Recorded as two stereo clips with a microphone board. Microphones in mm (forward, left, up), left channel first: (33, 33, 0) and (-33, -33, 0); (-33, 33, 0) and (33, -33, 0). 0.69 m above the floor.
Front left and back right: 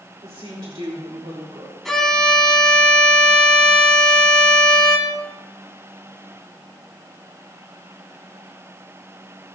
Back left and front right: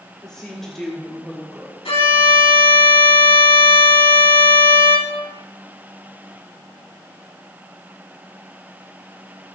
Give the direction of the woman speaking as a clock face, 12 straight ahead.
5 o'clock.